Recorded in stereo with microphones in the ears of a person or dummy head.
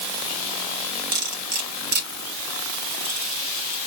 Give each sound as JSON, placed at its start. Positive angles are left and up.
{"t": 1.1, "sound": "cutlery clinking", "side_deg": -60, "distance_m": 3.5}